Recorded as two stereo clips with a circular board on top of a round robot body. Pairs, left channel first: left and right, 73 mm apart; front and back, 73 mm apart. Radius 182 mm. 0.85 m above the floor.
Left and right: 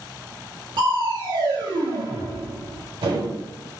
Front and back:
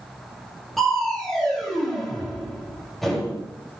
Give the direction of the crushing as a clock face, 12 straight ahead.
3 o'clock.